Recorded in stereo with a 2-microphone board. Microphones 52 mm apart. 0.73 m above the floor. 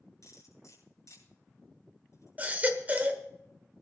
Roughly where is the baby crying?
Right.